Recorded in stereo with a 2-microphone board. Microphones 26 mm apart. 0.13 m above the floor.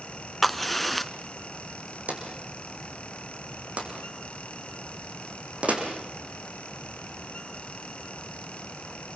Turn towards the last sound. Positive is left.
turn(degrees=-60)  # may be behind; listen again after turning